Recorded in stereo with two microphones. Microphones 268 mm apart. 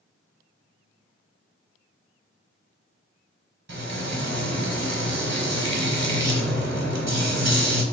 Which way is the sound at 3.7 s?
70° right (ahead or behind).